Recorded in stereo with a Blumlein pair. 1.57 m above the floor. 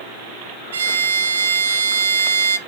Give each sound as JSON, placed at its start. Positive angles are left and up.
{"t": 0.7, "sound": "a violin", "azimuth_deg": -60, "distance_m": 0.7}